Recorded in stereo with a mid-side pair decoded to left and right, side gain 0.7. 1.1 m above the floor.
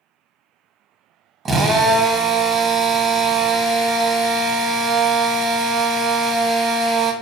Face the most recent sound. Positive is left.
turn(degrees=-30)